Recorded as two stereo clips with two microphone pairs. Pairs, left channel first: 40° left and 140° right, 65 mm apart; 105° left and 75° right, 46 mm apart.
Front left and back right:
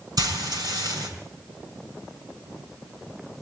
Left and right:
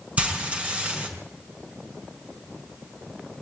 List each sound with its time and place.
0.2 s frying: 135° right, 5.5 m